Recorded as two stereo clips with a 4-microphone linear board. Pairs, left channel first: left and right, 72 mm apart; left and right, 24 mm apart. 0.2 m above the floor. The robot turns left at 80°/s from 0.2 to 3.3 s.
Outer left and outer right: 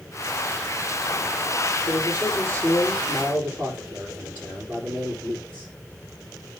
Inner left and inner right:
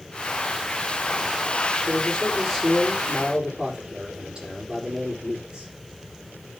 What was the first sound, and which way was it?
A man speaking, 85° left.